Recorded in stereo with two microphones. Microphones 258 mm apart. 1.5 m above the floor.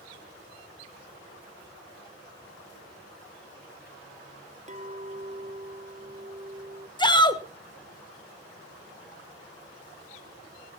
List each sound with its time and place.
4.7 s a clink: 30° right (ahead or behind), 0.5 m
7.0 s a shout: 15° left (ahead or behind), 1.4 m